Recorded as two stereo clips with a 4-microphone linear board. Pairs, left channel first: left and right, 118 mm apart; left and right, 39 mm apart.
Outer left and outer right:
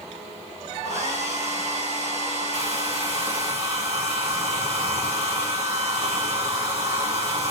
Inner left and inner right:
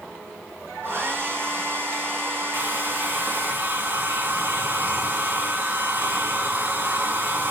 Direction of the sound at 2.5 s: 60° right (ahead or behind).